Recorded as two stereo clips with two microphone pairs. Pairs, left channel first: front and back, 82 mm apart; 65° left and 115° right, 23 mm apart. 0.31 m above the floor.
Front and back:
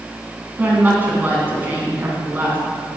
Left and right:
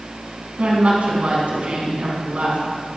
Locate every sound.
0.6 s a woman speaking: 115° right, 3 m